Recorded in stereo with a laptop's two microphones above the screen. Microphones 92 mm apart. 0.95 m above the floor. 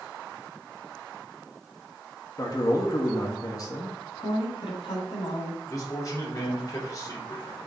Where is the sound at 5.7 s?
35° left (ahead or behind), 3 m.